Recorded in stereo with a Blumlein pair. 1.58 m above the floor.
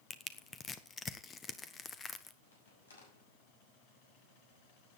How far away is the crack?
About 6 m.